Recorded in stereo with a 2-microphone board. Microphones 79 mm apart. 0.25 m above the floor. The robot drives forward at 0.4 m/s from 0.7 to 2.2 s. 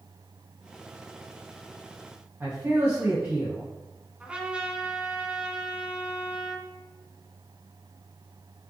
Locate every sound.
2.4 s a man speaking: 30° right (ahead or behind), 2 m
4.2 s a trumpet: 15° right (ahead or behind), 1.5 m